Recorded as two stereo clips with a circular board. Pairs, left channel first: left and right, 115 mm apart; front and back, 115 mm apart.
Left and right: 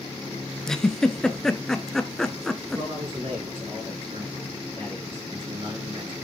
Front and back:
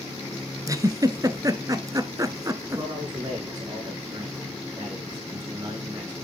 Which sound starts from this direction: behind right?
A man speaking, at 2.8 s.